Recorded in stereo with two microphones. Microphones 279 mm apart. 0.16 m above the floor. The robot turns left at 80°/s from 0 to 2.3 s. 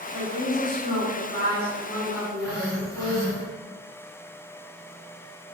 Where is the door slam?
No door slam in this recording.